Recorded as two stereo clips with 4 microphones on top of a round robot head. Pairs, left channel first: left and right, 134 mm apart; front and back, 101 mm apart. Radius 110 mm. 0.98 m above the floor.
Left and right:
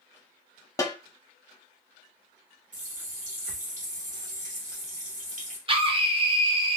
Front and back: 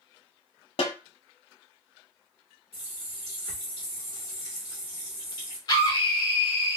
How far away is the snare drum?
About 0.9 m.